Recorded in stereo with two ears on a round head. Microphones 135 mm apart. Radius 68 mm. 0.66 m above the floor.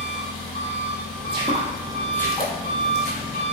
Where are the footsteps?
40° right (ahead or behind), 0.8 m; by 3.4 s 55° left (ahead or behind), 1.3 m.